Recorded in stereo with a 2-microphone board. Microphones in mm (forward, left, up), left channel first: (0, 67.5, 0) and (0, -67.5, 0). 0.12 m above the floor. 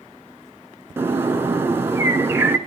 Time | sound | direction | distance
1.0 | a bird | 15° right (ahead or behind) | 1.3 m